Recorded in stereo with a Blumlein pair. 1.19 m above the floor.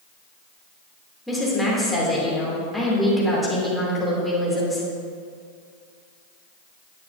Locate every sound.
1.3 s a woman speaking: 5° left, 3 m